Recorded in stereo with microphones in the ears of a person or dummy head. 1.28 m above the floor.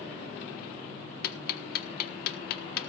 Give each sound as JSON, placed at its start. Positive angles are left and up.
{"t": 1.2, "sound": "ticking", "side_deg": 65, "distance_m": 1.4}